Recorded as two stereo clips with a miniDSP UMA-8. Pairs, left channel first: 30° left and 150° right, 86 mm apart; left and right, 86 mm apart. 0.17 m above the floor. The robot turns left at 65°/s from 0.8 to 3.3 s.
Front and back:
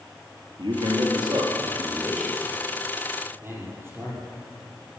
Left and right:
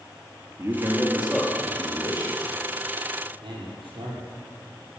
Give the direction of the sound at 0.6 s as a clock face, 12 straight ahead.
5 o'clock.